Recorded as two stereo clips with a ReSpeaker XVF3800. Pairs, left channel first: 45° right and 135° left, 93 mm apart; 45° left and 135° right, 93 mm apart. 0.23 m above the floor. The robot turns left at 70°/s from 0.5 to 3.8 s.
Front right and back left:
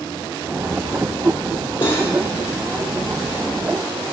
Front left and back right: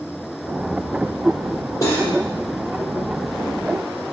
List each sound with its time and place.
1.8 s cutlery clinking: 10° right, 4.5 m; by 2.1 s 35° right, 4.5 m